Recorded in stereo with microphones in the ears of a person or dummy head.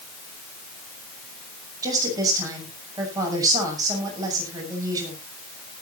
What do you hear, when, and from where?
1.8 s a woman speaking: 20° right (ahead or behind), 7 m